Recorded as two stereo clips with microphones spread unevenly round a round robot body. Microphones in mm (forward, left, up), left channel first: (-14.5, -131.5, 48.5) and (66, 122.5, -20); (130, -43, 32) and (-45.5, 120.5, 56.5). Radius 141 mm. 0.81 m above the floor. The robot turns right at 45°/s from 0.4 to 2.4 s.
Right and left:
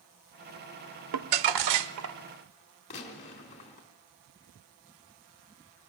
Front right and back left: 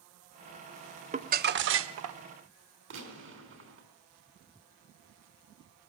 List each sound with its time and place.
1.1 s crumpling: 75° left, 0.9 m; by 2.2 s 125° left, 0.9 m
2.9 s a gunshot: 175° right, 4 m